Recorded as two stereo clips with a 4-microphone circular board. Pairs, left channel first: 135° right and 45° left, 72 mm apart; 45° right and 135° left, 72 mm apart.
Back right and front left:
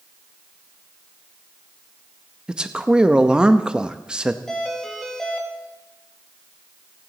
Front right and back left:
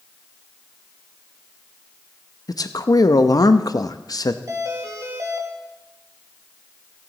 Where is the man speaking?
30° right, 0.7 m.